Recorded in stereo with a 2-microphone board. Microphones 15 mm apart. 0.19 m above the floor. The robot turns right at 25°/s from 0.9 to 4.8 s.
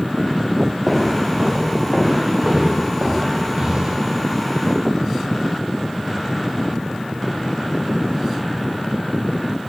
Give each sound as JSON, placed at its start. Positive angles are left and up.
{"t": 0.9, "sound": "footsteps", "side_deg": 0, "distance_m": 8.0}